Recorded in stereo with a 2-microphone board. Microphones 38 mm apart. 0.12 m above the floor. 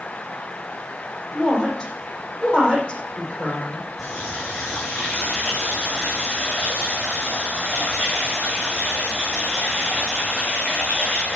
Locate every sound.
1.3 s a woman speaking: 20° left (ahead or behind), 5 m
4.0 s a running tap: 5° left (ahead or behind), 5 m